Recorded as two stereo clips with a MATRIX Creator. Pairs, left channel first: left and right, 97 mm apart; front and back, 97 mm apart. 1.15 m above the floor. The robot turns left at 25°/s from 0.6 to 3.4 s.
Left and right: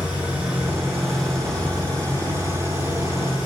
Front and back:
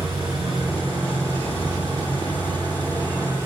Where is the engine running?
165° right, 7 m; by 3.5 s 125° left, 7 m.